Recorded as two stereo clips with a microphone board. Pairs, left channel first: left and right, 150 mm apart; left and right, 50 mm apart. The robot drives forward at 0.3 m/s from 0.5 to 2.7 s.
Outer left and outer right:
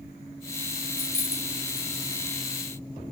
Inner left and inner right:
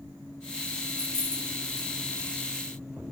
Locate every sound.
0.9 s keys jangling: 80° left, 2.5 m; by 1.9 s 85° left, 2.5 m